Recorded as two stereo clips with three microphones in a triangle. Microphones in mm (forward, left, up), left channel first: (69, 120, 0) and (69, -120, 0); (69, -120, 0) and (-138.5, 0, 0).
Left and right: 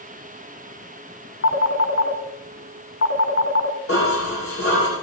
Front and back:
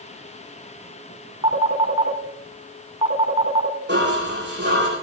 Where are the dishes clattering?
110° left, 10 m.